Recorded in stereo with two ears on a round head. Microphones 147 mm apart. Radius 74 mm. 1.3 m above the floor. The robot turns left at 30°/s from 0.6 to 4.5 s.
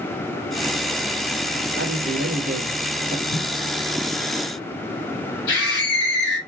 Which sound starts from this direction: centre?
Footsteps, at 3.3 s.